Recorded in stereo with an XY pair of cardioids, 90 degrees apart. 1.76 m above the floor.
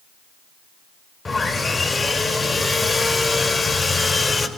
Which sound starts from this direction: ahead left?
Sawing, at 1.2 s.